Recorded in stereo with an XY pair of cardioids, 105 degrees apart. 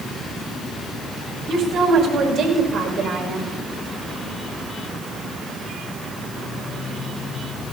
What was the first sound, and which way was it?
A woman speaking, 65° right.